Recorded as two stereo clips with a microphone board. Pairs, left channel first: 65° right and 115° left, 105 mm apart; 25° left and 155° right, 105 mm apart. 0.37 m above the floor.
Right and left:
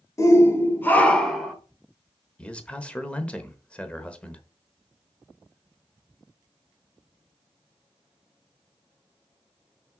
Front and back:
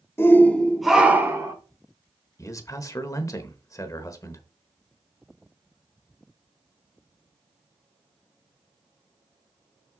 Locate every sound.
0.2 s a shout: 30° right, 1.3 m; by 1.5 s 160° right, 1.2 m
2.4 s a man speaking: 5° left, 1.0 m